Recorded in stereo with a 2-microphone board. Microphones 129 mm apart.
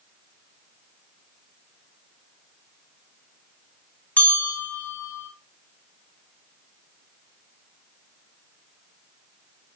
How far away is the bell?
About 2.5 m.